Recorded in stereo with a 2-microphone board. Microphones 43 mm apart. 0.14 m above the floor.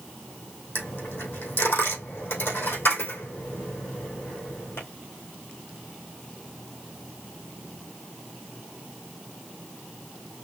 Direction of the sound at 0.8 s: 65° left (ahead or behind).